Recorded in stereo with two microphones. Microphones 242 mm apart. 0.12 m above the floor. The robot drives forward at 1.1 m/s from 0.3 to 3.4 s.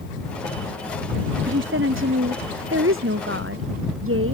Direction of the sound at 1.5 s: 55° right (ahead or behind).